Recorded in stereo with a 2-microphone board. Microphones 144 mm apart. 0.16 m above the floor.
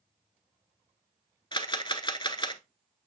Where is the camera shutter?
35° left (ahead or behind), 0.7 m.